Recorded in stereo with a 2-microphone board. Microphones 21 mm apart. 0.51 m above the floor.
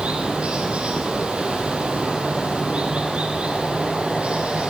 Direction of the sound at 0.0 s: 70° right (ahead or behind).